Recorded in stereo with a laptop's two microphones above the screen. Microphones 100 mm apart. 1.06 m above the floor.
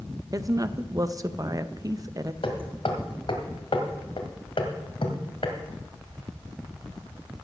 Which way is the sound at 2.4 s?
65° left (ahead or behind).